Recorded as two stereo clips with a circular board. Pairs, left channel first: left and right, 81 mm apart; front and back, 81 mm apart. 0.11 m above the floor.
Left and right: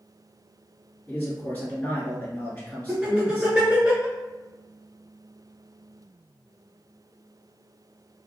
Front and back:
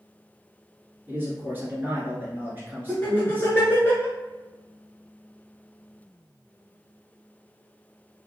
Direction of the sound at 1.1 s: 140° left.